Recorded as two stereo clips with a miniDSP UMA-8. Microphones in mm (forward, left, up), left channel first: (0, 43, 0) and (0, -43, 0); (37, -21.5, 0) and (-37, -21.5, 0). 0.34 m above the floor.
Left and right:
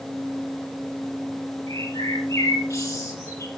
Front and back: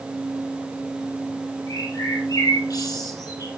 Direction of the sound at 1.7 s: 35° left.